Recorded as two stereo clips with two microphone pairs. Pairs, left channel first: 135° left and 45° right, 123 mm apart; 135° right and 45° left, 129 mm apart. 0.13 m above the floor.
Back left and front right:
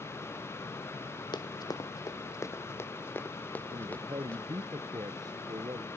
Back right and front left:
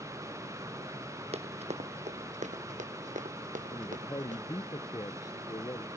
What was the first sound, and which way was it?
Running footsteps, 85° left.